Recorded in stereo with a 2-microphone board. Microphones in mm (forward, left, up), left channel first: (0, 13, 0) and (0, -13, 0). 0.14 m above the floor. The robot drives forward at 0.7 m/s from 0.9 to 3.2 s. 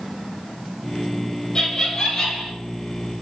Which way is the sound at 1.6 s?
30° left (ahead or behind).